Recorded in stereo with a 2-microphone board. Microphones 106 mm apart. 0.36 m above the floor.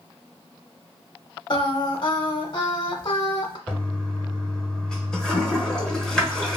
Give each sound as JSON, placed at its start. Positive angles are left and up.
{"t": 1.5, "sound": "singing", "side_deg": 50, "distance_m": 0.6}
{"t": 3.7, "sound": "a toilet flushing", "side_deg": 5, "distance_m": 1.0}